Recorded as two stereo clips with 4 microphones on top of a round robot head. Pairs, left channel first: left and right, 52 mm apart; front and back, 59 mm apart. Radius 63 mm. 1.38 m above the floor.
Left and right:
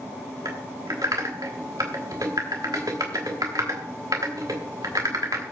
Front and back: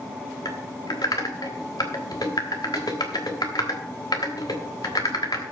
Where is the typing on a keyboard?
45° right, 1.2 m.